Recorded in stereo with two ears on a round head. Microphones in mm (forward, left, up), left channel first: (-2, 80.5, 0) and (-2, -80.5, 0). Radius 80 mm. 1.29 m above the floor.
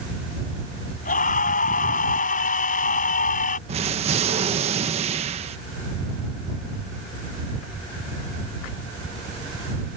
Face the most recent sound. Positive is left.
turn(degrees=-35)  # may be behind; listen again after turning